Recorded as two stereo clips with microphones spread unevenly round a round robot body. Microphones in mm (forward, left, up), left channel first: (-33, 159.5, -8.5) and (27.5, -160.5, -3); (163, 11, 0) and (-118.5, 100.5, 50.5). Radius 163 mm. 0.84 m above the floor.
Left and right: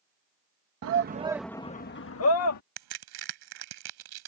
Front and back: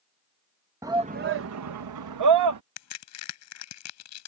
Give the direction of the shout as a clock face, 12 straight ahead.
4 o'clock.